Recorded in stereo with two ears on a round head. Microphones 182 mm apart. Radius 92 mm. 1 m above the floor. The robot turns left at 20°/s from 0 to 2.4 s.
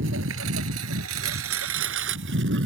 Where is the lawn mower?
65° right (ahead or behind).